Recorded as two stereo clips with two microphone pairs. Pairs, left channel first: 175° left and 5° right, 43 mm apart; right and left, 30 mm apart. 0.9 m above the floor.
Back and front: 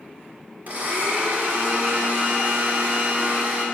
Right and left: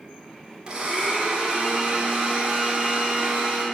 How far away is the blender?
About 2.5 m.